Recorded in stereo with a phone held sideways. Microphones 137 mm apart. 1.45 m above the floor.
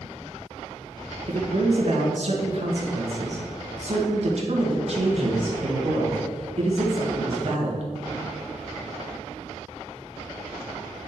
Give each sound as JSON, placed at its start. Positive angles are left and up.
{"t": 1.3, "sound": "a man speaking", "side_deg": -55, "distance_m": 1.8}